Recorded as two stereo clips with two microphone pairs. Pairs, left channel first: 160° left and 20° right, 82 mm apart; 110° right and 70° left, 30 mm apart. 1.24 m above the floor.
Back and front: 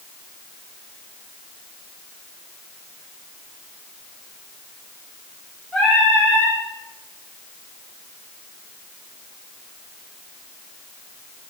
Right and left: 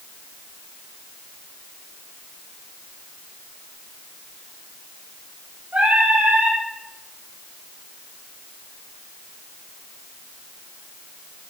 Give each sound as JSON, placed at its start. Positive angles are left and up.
{"t": 5.7, "sound": "singing", "azimuth_deg": 70, "distance_m": 9.0}